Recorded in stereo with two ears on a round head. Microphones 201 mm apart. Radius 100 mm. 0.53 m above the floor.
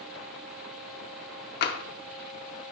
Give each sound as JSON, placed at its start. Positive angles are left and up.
{"t": 1.6, "sound": "tapping", "side_deg": 45, "distance_m": 0.5}